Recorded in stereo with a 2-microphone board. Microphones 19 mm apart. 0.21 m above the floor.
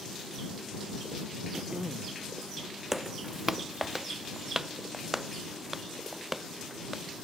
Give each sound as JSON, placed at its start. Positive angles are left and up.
{"t": 1.5, "sound": "throat clearing", "side_deg": -40}
{"t": 2.9, "sound": "footsteps", "side_deg": -20}